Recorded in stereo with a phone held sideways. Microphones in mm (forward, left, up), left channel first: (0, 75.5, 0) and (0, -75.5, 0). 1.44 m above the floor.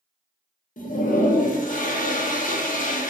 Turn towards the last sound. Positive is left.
turn(degrees=60)  # may be behind; listen again after turning